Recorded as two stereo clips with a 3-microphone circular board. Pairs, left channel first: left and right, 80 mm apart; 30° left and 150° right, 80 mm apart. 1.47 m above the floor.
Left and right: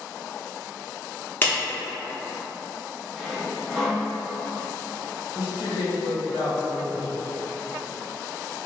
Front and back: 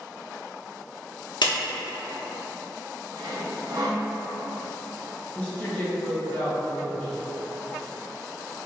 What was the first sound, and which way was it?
A clap, 25° left.